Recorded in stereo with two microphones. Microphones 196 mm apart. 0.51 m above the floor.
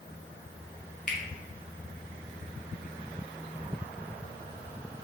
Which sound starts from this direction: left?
A finger snap, at 1.1 s.